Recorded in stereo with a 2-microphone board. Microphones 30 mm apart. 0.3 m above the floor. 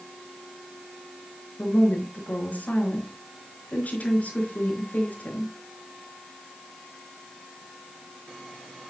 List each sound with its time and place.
1.6 s a woman speaking: 55° left (ahead or behind), 4.5 m